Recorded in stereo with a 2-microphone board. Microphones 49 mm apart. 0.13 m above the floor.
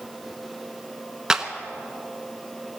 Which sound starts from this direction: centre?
A clap, at 1.3 s.